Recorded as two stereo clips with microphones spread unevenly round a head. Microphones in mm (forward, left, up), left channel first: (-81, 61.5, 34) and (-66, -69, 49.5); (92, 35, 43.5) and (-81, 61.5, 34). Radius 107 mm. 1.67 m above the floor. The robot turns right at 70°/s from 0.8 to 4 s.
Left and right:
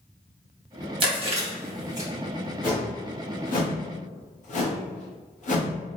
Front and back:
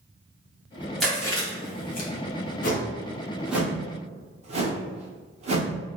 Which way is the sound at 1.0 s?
95° right.